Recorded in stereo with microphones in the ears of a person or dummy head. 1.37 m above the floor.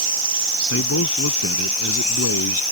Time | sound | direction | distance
0.7 | a man speaking | 85° left | ?